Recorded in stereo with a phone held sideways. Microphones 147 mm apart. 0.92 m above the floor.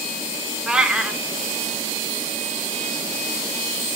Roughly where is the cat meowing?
Centre.